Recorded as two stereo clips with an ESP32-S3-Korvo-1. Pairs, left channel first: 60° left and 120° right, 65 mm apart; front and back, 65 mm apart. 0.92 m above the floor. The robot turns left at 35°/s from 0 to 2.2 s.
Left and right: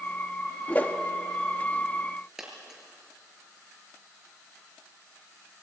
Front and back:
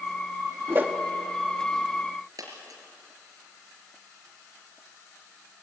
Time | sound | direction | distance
0.7 | a whoosh | 130° left | 1.3 m
2.4 | a dropped coin | 155° left | 4.5 m